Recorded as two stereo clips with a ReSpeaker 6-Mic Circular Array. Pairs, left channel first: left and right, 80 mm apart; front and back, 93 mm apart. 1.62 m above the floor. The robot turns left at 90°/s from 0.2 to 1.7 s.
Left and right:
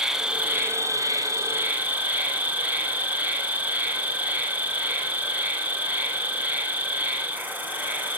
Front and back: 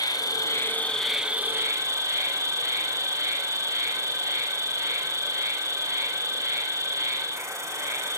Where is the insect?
10° right, 2 m; by 8.2 s 145° right, 2 m.